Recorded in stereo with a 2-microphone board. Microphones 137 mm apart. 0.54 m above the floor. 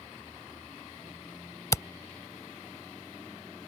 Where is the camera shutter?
25° left (ahead or behind).